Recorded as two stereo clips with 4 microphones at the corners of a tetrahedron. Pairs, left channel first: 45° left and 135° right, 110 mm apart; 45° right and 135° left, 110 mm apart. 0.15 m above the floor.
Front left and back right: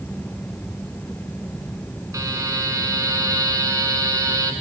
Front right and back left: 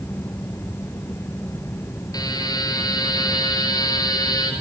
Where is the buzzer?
85° right, 1.8 m.